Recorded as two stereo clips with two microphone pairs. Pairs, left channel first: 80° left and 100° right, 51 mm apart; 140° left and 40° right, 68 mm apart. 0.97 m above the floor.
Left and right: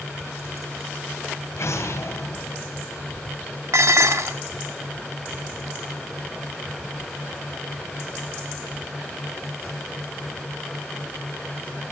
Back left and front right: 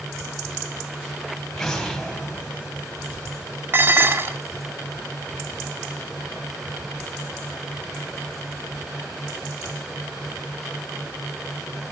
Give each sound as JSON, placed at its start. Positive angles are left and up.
{"t": 1.6, "sound": "an explosion", "azimuth_deg": 55, "distance_m": 3.5}
{"t": 3.7, "sound": "dishes clattering", "azimuth_deg": -95, "distance_m": 1.5}